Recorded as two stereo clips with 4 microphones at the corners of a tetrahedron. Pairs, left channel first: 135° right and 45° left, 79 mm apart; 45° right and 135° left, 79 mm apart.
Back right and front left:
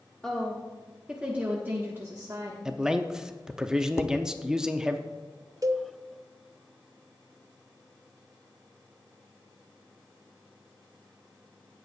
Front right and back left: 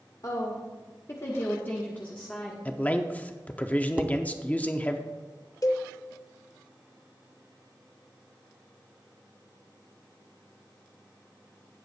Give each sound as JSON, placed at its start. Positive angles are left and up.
{"t": 0.2, "sound": "a woman speaking", "azimuth_deg": -55, "distance_m": 1.5}
{"t": 2.6, "sound": "a man speaking", "azimuth_deg": -25, "distance_m": 0.6}
{"t": 4.0, "sound": "dishes clattering", "azimuth_deg": -165, "distance_m": 0.6}
{"t": 5.6, "sound": "a cowbell", "azimuth_deg": 0, "distance_m": 0.6}